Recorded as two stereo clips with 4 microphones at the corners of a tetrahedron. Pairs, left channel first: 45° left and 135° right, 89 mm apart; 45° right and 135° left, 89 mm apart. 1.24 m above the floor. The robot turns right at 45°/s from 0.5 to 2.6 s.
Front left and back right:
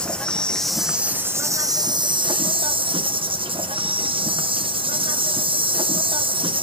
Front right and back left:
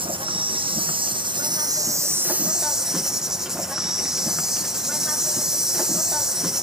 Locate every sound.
0.0 s an insect: 125° left, 0.7 m; by 6.6 s 140° right, 0.7 m